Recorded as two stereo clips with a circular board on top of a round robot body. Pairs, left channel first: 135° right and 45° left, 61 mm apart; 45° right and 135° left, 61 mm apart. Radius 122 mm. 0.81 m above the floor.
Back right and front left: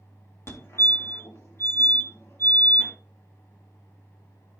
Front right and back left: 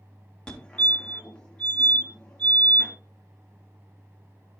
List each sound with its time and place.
0.5 s a fire alarm: 110° right, 2.5 m